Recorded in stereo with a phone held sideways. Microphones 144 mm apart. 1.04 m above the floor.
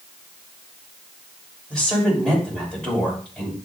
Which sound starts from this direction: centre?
A woman speaking, at 1.7 s.